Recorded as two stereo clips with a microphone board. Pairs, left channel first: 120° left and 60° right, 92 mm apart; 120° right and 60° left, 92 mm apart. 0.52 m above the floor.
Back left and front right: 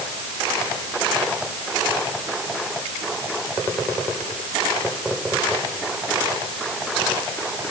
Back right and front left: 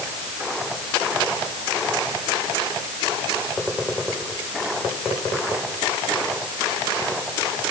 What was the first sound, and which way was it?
Only background noise.